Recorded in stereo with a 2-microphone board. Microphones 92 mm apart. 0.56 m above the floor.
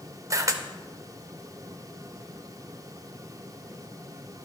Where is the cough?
I don't hear a cough.